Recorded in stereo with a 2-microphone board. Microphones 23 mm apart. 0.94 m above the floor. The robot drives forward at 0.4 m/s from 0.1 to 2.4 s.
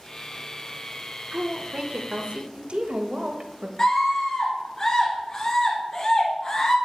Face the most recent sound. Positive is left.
turn(degrees=40)  # may be behind; listen again after turning